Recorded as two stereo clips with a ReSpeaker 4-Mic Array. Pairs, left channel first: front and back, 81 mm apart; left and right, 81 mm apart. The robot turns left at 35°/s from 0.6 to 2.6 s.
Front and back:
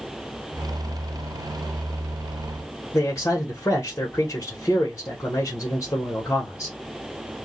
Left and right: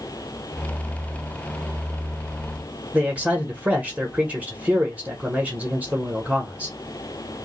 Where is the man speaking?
25° right, 1.2 m.